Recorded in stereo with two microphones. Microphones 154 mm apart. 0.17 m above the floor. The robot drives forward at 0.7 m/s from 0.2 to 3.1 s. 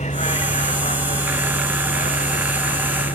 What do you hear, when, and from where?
0.0 s a vehicle: 50° left (ahead or behind); by 3.1 s 55° left (ahead or behind)